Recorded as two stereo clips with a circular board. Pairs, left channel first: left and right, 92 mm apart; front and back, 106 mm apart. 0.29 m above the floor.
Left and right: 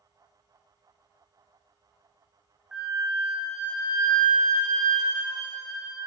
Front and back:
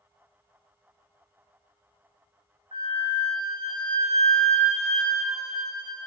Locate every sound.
2.7 s a flute: 175° right, 3.5 m